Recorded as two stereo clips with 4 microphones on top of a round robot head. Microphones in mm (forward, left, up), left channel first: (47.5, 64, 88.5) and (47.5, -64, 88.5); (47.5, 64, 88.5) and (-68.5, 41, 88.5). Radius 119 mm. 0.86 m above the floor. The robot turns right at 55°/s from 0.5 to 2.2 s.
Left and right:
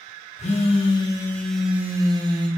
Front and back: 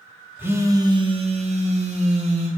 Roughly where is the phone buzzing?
Behind left.